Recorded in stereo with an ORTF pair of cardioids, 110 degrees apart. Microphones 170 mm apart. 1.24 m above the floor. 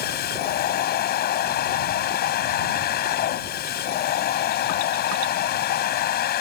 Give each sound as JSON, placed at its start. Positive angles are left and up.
{"t": 0.0, "sound": "a machine running", "azimuth_deg": 65}